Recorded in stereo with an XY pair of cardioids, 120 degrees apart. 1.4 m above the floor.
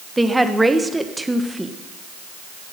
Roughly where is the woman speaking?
Ahead.